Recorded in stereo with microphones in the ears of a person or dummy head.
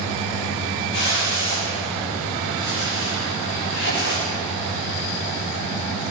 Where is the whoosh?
65° left (ahead or behind), 4 m.